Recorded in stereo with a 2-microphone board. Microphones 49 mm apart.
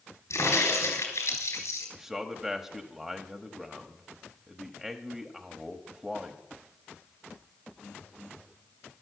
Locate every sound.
0.3 s a crack: 75° left (ahead or behind), 4 m
1.9 s a man speaking: 10° right (ahead or behind), 1.0 m